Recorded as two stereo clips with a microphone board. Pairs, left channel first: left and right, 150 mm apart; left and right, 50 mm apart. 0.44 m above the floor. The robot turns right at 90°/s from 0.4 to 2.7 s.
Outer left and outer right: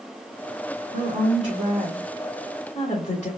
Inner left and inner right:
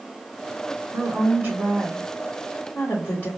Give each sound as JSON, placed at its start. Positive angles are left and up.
{"t": 0.9, "sound": "a woman speaking", "azimuth_deg": -100, "distance_m": 2.5}